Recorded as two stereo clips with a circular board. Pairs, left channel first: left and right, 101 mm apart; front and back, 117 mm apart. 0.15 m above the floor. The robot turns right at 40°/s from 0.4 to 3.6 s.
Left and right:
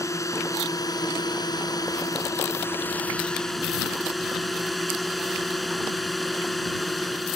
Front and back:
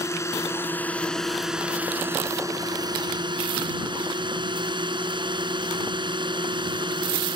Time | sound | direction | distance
0.0 | a drone | 50° left | ?